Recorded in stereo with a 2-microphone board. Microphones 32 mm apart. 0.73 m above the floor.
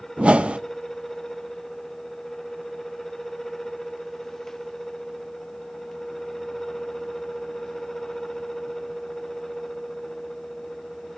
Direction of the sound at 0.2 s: 40° right (ahead or behind).